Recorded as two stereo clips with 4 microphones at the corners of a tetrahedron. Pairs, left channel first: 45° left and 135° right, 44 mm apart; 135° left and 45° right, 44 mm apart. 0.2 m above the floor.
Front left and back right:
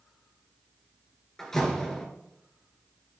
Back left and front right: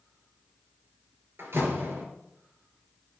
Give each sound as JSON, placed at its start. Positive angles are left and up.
{"t": 1.4, "sound": "a door slam", "azimuth_deg": -35, "distance_m": 2.5}